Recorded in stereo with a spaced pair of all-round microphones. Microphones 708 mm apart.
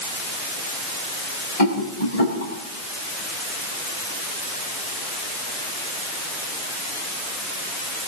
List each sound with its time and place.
1.6 s a rattle: 55° left (ahead or behind), 7 m